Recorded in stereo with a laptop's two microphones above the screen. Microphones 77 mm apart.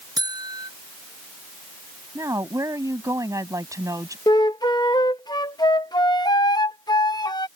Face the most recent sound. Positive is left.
turn(degrees=60)  # may be behind; listen again after turning